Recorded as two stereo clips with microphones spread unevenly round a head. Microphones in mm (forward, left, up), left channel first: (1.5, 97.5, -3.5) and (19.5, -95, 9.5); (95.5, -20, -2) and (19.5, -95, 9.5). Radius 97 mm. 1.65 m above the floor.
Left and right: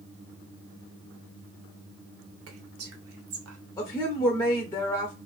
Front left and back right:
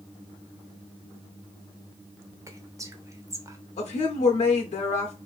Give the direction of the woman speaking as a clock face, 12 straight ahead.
11 o'clock.